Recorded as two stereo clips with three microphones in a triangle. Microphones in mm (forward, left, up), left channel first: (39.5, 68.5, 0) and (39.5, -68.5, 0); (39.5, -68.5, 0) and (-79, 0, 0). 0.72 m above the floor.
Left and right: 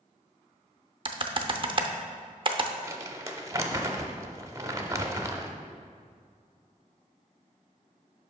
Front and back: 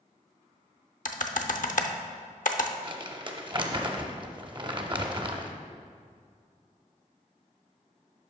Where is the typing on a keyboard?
40° right, 0.6 m.